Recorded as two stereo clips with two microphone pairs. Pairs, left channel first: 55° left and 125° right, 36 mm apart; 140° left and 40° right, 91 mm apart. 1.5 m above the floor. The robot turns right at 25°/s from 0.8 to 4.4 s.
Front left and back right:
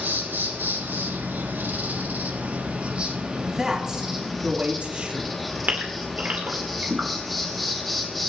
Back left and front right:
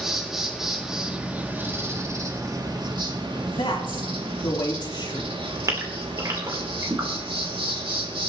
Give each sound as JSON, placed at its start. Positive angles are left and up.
{"t": 0.0, "sound": "an insect", "azimuth_deg": -125, "distance_m": 2.5}
{"t": 3.4, "sound": "a man speaking", "azimuth_deg": 150, "distance_m": 3.0}
{"t": 5.7, "sound": "a gasp", "azimuth_deg": -90, "distance_m": 3.0}